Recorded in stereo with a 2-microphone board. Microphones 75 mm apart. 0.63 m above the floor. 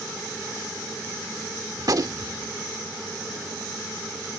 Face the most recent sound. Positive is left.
turn(degrees=-55)  # may be behind; listen again after turning